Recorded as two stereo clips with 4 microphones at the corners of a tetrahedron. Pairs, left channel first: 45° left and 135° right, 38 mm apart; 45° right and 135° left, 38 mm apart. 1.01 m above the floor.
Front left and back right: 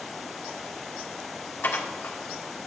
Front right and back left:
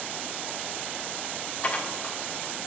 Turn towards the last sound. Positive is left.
turn(degrees=15)